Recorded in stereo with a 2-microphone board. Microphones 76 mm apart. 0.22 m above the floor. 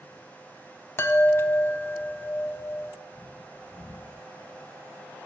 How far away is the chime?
About 0.5 m.